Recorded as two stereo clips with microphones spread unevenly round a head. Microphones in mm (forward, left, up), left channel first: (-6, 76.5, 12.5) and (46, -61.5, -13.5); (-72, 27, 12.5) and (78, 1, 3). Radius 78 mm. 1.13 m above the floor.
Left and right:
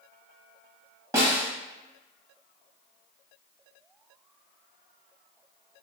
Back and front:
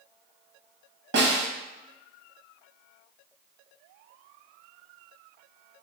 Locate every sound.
1.1 s a snare drum: 5° left, 1.2 m